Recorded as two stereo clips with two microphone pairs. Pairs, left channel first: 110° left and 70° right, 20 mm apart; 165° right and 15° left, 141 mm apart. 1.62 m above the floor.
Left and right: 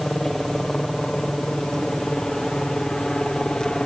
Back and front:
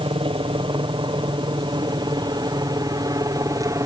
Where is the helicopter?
40° left; by 3.9 s 70° left.